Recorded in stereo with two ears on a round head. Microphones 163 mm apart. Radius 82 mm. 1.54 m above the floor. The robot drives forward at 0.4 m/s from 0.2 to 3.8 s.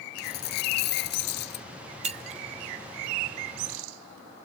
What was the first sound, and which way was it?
A dropped coin, 55° left (ahead or behind).